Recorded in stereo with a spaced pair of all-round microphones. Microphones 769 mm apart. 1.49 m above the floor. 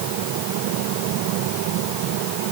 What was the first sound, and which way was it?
Only background noise.